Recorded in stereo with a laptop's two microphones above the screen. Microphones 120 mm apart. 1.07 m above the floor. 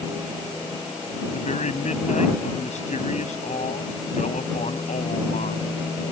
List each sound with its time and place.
1.3 s a man speaking: 80° left